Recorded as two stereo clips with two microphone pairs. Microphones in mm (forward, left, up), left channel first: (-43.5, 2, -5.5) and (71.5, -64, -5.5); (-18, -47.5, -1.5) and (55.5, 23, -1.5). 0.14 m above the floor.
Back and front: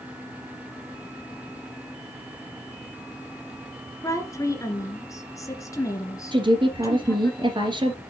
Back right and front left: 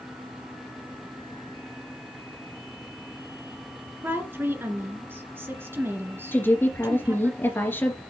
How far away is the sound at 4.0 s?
About 1.9 m.